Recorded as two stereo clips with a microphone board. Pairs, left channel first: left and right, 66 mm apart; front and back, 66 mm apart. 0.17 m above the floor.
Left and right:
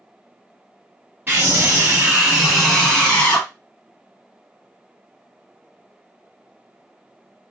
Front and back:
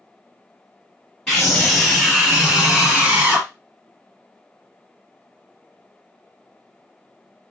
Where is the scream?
75° right, 1.3 m; by 3.5 s 140° left, 1.3 m.